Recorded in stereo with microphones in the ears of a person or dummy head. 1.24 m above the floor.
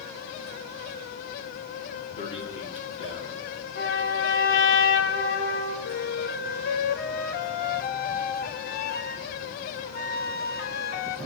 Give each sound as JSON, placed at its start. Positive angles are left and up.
{"t": 2.2, "sound": "a man speaking", "side_deg": 35, "distance_m": 2.5}
{"t": 3.8, "sound": "a trumpet", "side_deg": 75, "distance_m": 3.0}
{"t": 5.8, "sound": "a flute", "side_deg": 45, "distance_m": 0.6}